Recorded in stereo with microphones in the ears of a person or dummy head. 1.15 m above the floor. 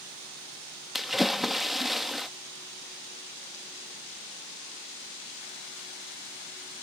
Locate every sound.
0.9 s a splash: 5° left (ahead or behind)